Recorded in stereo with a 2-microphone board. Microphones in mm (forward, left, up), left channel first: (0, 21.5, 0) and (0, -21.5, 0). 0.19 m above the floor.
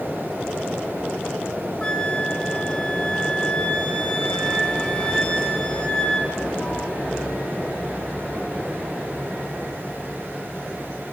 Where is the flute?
20° left (ahead or behind), 2 m.